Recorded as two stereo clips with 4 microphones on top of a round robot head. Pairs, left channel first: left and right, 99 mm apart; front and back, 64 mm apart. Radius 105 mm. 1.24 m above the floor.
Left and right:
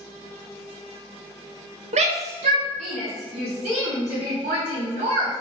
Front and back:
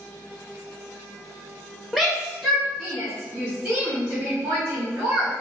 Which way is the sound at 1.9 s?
85° right.